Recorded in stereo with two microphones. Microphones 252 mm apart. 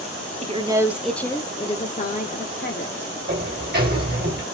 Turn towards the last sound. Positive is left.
turn(degrees=-40)  # may be behind; listen again after turning